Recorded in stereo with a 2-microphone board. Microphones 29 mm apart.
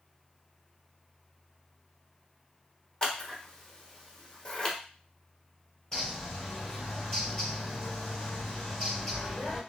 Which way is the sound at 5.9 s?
15° left (ahead or behind).